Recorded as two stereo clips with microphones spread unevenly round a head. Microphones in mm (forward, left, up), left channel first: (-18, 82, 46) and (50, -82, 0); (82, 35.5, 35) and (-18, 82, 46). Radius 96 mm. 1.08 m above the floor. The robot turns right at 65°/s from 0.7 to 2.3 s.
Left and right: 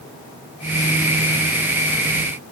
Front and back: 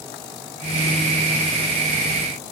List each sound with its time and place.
Only background noise.